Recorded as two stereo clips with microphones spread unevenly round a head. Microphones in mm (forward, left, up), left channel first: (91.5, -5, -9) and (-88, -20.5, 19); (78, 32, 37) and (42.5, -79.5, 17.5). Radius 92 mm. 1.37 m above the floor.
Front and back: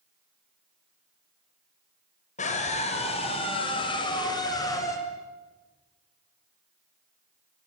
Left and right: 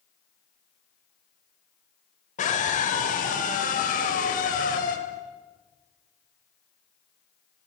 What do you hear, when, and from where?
2.4 s a scream: 60° left, 6 m; by 5.0 s 80° left, 6.5 m